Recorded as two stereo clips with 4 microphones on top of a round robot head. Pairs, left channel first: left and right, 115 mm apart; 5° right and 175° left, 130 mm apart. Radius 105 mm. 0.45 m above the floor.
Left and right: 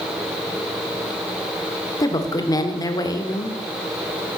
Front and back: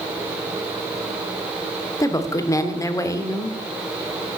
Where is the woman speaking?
45° left, 1.6 m.